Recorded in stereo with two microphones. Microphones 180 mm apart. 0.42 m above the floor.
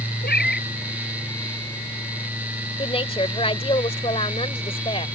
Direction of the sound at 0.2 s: 65° left (ahead or behind).